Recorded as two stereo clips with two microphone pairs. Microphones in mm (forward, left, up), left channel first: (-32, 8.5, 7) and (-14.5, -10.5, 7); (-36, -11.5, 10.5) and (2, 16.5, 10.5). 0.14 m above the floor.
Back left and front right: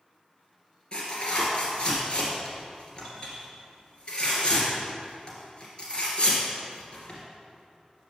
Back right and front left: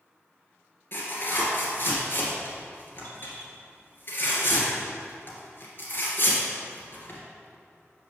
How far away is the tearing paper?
About 2.5 m.